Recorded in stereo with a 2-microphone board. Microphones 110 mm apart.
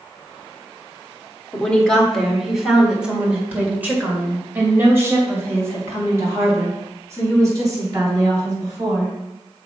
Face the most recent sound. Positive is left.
turn(degrees=-35)  # may be behind; listen again after turning